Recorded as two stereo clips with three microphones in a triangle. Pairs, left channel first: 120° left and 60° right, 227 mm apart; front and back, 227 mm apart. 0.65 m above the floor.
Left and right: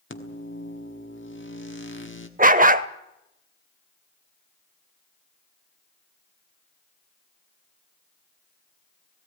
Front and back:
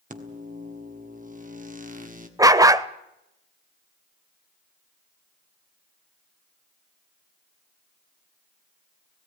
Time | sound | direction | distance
0.1 | a microwave | 135° left | 1.5 m
2.4 | a dog barking | 105° right | 0.6 m